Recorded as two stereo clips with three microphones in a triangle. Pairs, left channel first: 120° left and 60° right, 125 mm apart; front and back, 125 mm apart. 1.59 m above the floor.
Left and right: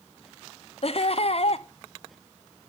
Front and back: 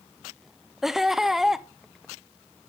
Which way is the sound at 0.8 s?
95° left.